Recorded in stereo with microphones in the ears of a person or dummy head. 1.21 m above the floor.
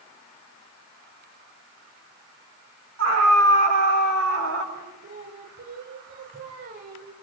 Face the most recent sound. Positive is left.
turn(degrees=-50)  # may be behind; listen again after turning